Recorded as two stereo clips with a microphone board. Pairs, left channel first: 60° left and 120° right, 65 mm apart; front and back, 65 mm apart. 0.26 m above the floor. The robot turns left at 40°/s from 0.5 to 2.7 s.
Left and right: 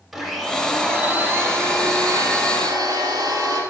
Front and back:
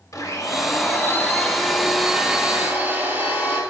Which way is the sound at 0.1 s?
30° right.